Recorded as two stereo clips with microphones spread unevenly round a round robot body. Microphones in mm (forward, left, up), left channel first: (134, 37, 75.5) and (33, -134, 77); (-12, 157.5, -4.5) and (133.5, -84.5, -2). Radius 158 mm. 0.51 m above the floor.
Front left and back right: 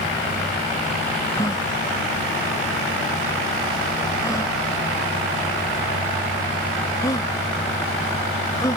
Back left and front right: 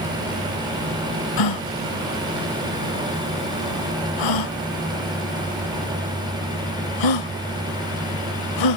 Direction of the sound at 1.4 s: 135° left.